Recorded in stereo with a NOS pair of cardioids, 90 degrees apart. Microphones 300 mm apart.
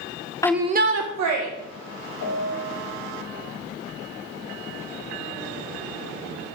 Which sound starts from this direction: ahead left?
A piano, at 2.2 s.